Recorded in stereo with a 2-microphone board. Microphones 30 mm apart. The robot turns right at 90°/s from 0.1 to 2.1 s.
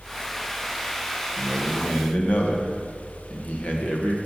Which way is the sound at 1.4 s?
5° right.